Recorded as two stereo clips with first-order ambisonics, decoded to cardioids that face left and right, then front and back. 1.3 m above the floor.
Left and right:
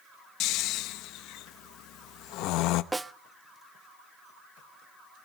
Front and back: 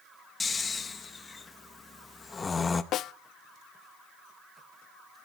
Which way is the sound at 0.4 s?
70° left.